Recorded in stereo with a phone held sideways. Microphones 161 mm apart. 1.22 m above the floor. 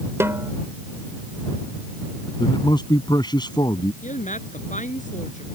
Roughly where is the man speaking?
Left.